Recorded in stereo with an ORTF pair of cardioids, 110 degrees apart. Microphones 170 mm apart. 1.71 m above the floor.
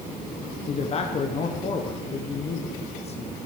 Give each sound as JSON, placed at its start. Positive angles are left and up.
{"t": 0.7, "sound": "a man speaking", "azimuth_deg": 40, "distance_m": 1.3}